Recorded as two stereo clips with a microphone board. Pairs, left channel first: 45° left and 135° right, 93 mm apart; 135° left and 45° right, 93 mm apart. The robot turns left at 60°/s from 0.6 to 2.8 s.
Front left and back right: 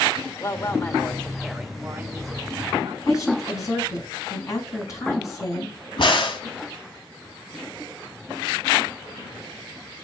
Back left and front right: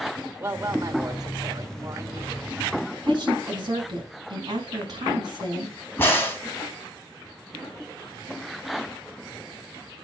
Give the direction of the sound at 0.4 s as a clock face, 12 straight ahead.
12 o'clock.